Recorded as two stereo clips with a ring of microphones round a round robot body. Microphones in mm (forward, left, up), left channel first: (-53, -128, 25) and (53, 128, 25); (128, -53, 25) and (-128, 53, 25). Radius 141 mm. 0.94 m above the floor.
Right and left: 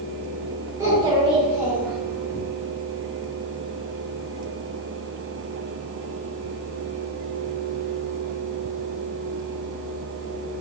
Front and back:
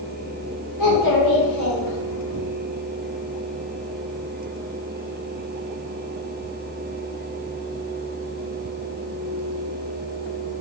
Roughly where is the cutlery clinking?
I don't hear cutlery clinking.